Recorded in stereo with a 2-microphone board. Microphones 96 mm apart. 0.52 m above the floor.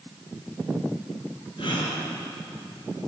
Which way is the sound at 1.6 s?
60° left (ahead or behind).